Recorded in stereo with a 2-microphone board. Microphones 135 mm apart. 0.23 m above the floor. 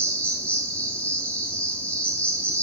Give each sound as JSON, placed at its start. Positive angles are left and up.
{"t": 0.0, "sound": "an insect", "side_deg": 10, "distance_m": 3.0}